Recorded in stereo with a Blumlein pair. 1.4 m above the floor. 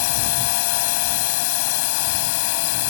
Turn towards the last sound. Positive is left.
turn(degrees=50)